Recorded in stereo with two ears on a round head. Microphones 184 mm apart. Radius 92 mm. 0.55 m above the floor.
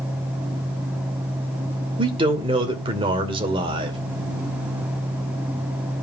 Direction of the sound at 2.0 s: 25° right (ahead or behind).